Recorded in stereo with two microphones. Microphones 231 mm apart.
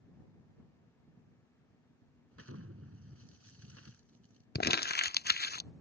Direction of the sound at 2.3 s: 75° right (ahead or behind).